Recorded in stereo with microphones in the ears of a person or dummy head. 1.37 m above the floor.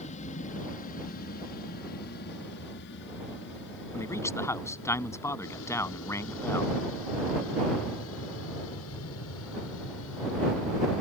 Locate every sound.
0.0 s an aircraft: 40° left (ahead or behind); by 11.0 s 75° left (ahead or behind)
3.9 s a man speaking: 15° left (ahead or behind)